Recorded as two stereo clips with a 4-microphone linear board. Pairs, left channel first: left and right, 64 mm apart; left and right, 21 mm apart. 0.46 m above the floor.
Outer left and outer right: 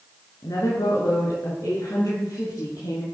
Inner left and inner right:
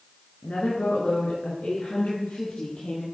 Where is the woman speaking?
70° left (ahead or behind), 6 m; by 3.0 s 65° left (ahead or behind), 7 m.